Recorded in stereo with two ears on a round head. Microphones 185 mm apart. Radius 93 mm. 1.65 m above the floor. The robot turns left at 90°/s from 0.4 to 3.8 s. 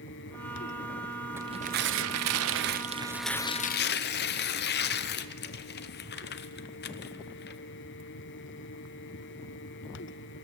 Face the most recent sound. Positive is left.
turn(degrees=130)